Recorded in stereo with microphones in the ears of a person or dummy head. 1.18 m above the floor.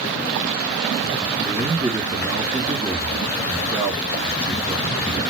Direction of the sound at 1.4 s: 10° right (ahead or behind).